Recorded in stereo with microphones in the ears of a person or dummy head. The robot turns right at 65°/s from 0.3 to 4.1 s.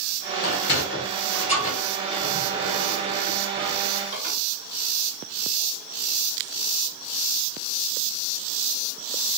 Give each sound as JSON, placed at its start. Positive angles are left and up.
{"t": 0.4, "sound": "a sliding door", "side_deg": 55, "distance_m": 1.5}